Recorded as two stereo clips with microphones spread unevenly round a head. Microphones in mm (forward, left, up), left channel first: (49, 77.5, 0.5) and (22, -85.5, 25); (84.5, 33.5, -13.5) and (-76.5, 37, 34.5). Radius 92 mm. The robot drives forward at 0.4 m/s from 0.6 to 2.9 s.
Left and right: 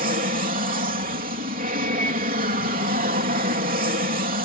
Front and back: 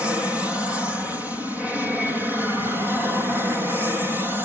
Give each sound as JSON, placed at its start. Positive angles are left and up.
{"t": 0.0, "sound": "an aircraft", "azimuth_deg": -85}